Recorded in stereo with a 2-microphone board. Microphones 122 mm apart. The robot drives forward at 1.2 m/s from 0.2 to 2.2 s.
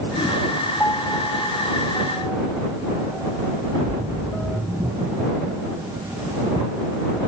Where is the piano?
20° left (ahead or behind); by 4.6 s 10° left (ahead or behind).